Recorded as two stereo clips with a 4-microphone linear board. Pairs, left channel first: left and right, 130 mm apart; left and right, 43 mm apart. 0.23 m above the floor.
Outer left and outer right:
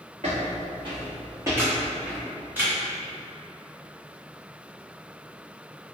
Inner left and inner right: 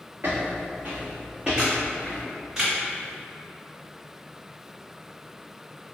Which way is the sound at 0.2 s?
55° right (ahead or behind).